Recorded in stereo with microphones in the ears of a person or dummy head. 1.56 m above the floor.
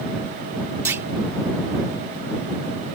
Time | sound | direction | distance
0.8 | a clunk | 10° right (ahead or behind) | ?